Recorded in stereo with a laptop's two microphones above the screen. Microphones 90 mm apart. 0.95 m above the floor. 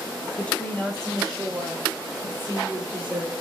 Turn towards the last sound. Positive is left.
turn(degrees=-10)  # may be behind; listen again after turning